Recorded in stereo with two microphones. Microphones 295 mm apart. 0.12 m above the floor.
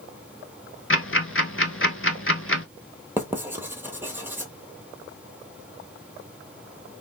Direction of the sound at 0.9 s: 45° left (ahead or behind).